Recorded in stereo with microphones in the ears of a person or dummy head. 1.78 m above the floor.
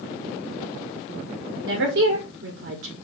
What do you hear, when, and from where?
1.6 s a woman speaking: 65° right (ahead or behind), 1.1 m